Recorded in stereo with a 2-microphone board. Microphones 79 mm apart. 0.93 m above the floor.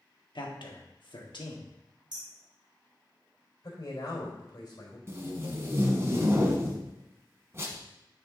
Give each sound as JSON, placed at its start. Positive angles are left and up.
{"t": 0.3, "sound": "a man speaking", "side_deg": 70, "distance_m": 1.5}
{"t": 2.1, "sound": "hammering", "side_deg": -55, "distance_m": 2.5}
{"t": 3.6, "sound": "a man speaking", "side_deg": 50, "distance_m": 3.5}
{"t": 5.1, "sound": "tape being pulled", "side_deg": -30, "distance_m": 1.4}